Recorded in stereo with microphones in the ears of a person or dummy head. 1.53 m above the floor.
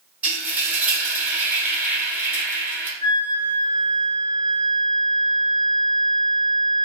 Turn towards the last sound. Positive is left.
turn(degrees=-25)  # may be behind; listen again after turning